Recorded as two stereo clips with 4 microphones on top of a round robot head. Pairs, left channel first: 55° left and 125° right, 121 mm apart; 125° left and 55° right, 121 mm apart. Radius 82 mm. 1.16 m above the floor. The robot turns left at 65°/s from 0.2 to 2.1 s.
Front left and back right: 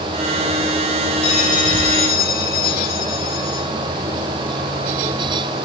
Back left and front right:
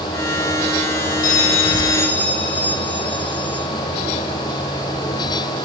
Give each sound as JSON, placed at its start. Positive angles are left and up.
{"t": 1.2, "sound": "a bell", "azimuth_deg": 105, "distance_m": 2.0}